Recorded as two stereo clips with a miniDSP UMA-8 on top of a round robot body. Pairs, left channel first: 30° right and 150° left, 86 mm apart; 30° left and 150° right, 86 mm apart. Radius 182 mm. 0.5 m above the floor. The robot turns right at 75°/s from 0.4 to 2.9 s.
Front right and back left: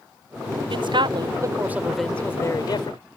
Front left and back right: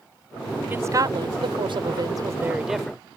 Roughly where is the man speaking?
Behind left.